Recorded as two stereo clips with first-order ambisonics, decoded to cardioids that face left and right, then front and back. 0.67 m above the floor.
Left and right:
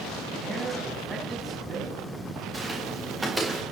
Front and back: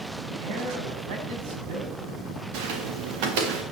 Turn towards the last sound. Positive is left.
turn(degrees=-175)